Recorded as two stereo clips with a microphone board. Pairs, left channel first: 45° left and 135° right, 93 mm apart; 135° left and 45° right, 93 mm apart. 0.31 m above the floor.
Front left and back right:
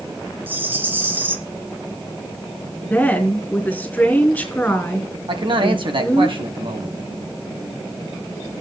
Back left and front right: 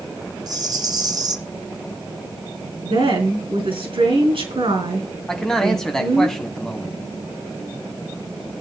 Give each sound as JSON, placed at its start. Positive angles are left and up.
{"t": 0.5, "sound": "a rattle", "azimuth_deg": -75, "distance_m": 1.2}
{"t": 2.8, "sound": "a woman speaking", "azimuth_deg": -30, "distance_m": 4.5}
{"t": 5.3, "sound": "a man speaking", "azimuth_deg": -140, "distance_m": 2.0}